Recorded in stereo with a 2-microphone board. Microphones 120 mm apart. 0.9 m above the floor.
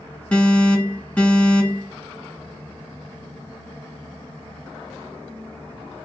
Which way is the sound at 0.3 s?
15° left (ahead or behind).